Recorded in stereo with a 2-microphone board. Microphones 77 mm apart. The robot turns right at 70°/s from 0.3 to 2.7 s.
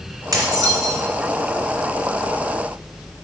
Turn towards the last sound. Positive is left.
turn(degrees=55)